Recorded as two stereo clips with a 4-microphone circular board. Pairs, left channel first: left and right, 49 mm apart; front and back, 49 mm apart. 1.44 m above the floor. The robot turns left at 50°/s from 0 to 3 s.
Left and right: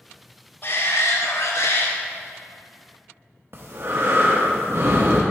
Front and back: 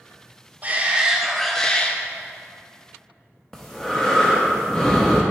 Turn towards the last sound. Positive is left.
turn(degrees=-80)